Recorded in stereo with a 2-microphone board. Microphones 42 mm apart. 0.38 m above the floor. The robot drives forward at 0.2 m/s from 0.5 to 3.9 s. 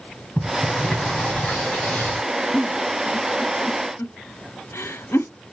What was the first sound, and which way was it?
A sliding door, 35° left (ahead or behind).